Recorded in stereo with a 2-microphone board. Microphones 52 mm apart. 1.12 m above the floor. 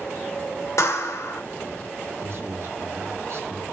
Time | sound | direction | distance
0.8 | a clap | 75° left (ahead or behind) | 2.5 m
2.2 | a man speaking | 50° right (ahead or behind) | 1.6 m